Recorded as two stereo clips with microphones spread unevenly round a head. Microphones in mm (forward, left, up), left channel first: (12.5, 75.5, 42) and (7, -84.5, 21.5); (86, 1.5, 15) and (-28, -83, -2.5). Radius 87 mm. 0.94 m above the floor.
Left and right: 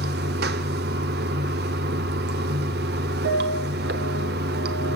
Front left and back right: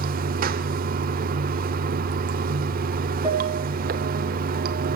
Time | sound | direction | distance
0.0 | running water | 125° right | 1.1 m
3.2 | a piano | 80° right | 5.5 m